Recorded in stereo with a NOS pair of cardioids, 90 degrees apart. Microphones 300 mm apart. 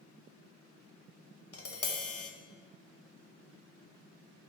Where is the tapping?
50° left, 0.9 m.